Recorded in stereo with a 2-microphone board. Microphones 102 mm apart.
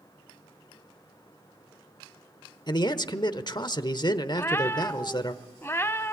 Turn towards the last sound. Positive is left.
turn(degrees=25)  # may be behind; listen again after turning